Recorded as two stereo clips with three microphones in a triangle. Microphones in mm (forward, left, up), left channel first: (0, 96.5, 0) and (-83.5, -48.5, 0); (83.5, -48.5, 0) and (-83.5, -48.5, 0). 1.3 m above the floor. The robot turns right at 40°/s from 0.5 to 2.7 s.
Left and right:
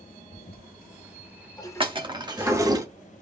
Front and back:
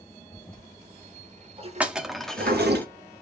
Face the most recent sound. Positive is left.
turn(degrees=-70)